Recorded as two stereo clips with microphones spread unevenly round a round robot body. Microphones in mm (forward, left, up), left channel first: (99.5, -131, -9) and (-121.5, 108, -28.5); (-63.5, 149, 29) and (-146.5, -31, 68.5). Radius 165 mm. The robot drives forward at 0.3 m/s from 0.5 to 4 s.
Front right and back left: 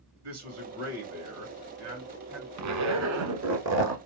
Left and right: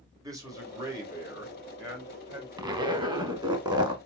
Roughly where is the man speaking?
Behind.